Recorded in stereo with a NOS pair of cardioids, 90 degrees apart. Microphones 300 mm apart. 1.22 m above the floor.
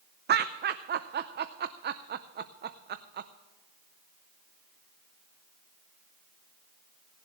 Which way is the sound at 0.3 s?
35° right.